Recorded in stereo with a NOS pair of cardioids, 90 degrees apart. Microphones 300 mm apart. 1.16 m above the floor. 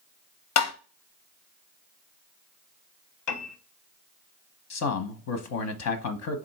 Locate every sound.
0.6 s tapping: 60° left, 0.7 m
3.3 s a piano: 70° left, 0.9 m
4.7 s a man speaking: 60° left, 0.8 m